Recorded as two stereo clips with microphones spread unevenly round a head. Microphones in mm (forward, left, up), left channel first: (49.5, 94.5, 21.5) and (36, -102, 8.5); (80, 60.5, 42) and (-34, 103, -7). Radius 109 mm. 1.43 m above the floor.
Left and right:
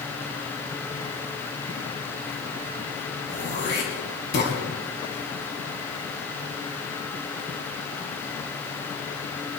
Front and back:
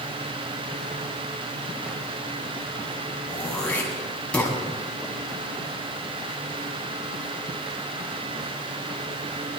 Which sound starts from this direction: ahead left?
Throat clearing, at 3.3 s.